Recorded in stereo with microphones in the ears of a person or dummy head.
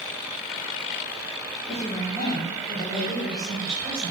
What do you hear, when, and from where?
1.7 s a woman speaking: 20° left (ahead or behind), 2.5 m; by 4.1 s 5° right (ahead or behind), 5 m